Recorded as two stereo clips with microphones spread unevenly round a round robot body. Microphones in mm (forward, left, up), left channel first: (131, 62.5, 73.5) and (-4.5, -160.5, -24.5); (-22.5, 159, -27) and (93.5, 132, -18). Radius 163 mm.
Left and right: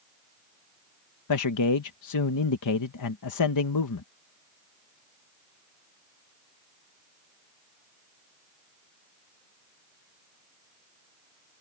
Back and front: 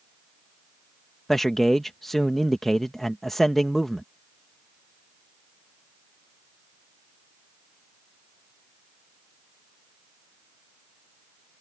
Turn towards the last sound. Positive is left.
turn(degrees=80)